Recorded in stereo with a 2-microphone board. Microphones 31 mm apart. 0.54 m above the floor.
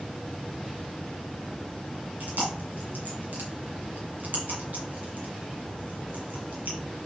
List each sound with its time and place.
2.2 s chewing: 75° right (ahead or behind), 3 m